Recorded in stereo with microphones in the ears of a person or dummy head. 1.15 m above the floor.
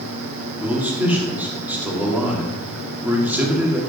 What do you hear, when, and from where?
0.6 s a man speaking: 5° right (ahead or behind), 2 m